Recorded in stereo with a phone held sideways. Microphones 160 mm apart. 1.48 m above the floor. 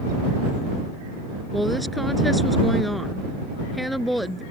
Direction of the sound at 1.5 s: Centre (ahead or behind).